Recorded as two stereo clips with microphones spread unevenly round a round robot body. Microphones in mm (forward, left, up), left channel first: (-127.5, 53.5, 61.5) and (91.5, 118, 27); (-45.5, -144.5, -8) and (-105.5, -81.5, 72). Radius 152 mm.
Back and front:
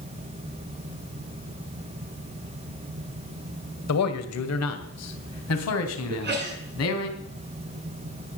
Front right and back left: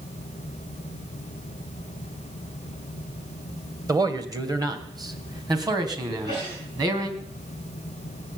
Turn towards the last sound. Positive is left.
turn(degrees=55)